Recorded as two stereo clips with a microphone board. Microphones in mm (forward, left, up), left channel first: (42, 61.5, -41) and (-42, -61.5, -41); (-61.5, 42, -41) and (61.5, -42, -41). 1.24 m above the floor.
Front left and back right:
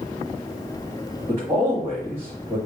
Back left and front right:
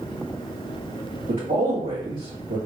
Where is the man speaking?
60° right, 1.6 m.